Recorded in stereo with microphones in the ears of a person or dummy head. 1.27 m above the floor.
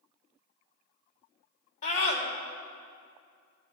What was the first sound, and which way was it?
A scream, 50° left (ahead or behind).